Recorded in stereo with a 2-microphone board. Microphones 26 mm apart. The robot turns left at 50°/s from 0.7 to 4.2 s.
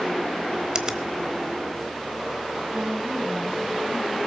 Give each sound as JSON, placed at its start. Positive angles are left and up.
{"t": 0.8, "sound": "a finger snap", "side_deg": -30, "distance_m": 1.0}
{"t": 2.7, "sound": "a woman speaking", "azimuth_deg": -60, "distance_m": 2.0}